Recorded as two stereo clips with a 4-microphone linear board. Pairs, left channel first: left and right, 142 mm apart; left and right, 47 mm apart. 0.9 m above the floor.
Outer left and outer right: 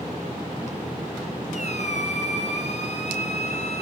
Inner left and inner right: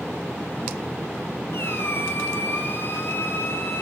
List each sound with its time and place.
1.5 s a squeak: 55° left (ahead or behind), 2.5 m